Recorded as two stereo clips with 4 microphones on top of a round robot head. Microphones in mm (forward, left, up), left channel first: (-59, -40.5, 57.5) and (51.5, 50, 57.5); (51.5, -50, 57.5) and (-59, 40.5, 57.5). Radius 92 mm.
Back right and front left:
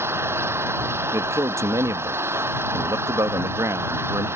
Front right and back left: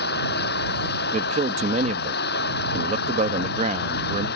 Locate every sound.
0.0 s an engine running: 35° right
1.1 s a man speaking: 110° left